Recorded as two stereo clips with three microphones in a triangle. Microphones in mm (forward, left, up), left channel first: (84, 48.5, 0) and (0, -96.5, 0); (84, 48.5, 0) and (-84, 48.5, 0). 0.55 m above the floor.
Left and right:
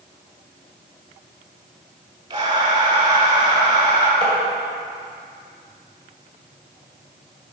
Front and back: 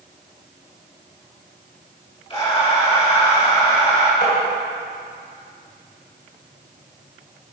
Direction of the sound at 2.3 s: 60° right.